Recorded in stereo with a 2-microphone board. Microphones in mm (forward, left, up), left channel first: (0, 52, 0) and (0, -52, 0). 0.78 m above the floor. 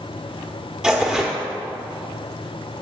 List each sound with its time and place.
0.8 s tearing paper: 10° right (ahead or behind), 1.7 m